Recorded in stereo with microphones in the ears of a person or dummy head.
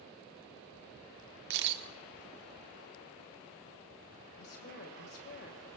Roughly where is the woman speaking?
Left.